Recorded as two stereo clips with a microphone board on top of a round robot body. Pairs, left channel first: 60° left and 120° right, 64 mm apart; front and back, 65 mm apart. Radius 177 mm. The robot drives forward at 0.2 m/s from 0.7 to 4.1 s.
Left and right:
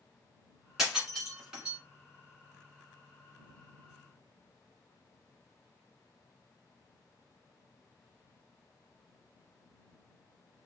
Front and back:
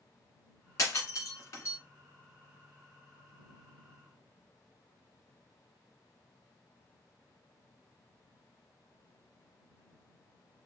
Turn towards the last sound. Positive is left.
turn(degrees=-65)